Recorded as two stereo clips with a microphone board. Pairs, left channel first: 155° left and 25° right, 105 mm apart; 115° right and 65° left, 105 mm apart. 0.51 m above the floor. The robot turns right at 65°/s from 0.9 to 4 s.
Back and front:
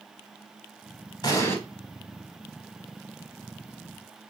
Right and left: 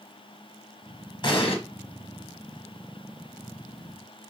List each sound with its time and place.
1.2 s an explosion: 155° right, 1.1 m; by 1.6 s 135° right, 1.1 m